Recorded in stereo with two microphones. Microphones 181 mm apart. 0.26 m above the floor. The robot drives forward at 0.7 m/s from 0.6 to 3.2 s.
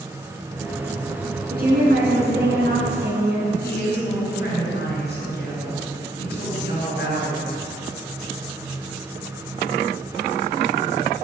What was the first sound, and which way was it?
A woman speaking, 55° right (ahead or behind).